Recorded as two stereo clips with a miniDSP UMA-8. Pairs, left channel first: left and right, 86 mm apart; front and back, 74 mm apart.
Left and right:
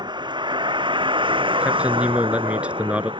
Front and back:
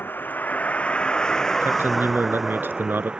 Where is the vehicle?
65° right; by 3.2 s 105° right.